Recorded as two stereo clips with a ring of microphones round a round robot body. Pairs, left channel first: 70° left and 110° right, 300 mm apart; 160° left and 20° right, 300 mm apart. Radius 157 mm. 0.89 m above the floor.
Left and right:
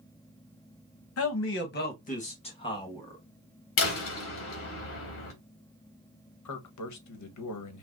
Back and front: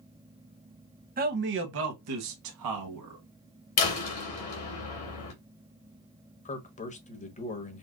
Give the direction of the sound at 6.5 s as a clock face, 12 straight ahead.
9 o'clock.